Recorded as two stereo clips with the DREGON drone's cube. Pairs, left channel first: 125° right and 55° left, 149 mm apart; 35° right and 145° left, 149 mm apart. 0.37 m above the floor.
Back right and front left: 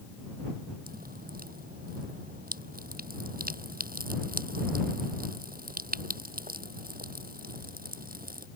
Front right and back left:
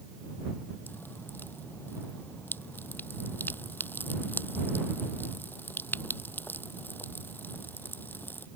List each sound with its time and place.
0.9 s dripping: 40° left